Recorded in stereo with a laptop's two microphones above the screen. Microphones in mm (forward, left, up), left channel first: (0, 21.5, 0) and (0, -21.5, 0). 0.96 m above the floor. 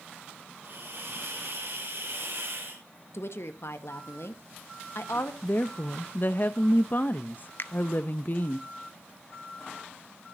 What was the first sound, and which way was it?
A hiss, 60° right (ahead or behind).